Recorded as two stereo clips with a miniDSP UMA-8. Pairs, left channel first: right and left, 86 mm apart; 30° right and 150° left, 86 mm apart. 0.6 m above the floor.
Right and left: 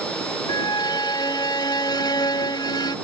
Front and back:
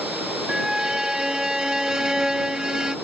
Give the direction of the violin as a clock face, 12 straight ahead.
4 o'clock.